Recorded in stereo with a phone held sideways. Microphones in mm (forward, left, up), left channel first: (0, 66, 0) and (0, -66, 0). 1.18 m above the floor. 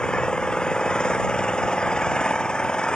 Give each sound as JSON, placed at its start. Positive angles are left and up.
{"t": 0.0, "sound": "an engine running", "side_deg": 5}